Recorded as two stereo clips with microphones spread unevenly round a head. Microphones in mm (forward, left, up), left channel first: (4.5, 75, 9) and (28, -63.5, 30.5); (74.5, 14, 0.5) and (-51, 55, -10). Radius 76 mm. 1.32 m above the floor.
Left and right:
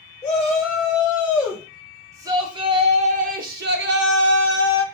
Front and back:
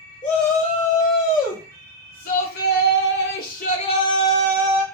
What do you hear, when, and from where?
0.2 s a shout: 10° left, 1.9 m; by 4.8 s 105° right, 1.0 m